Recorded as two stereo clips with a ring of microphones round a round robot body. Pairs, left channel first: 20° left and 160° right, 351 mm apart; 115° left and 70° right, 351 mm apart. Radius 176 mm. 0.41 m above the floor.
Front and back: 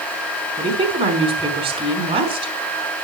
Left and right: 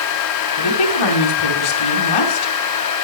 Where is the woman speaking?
125° left, 4.5 m.